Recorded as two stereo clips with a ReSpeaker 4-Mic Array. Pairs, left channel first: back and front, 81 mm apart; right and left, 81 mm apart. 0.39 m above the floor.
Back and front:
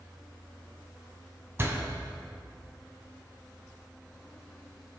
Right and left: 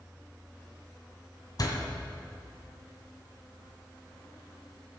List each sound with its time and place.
1.6 s a door slam: 55° right, 1.9 m